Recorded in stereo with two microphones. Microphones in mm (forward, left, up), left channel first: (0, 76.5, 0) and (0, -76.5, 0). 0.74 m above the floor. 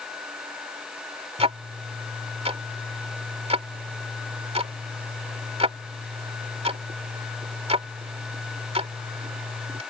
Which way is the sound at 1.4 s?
40° right (ahead or behind).